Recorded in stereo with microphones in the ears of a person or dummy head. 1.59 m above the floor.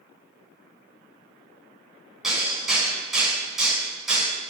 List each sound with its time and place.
2.2 s hammering: centre (ahead or behind), 8 m